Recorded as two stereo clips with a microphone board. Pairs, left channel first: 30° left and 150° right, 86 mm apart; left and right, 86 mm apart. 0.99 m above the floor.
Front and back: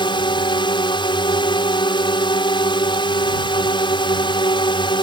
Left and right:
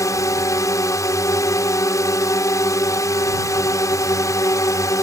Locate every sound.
0.0 s a drone: 40° left